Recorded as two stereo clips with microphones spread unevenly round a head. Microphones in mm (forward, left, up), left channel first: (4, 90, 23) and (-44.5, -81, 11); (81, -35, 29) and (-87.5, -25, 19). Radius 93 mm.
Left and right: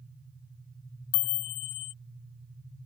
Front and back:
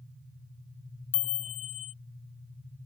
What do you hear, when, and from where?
1.1 s a chime: 55° left